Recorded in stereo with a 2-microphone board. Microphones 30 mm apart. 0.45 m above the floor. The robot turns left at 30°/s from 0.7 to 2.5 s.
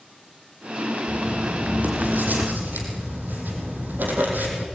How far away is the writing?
About 5.5 m.